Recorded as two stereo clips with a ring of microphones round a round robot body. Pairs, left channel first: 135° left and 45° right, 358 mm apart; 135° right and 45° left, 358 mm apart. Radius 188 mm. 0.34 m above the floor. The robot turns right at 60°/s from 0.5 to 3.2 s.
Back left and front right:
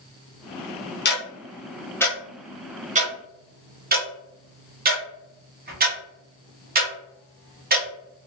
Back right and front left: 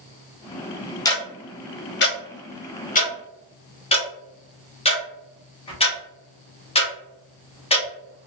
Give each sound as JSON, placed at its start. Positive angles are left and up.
{"t": 1.1, "sound": "ticking", "azimuth_deg": 155, "distance_m": 1.0}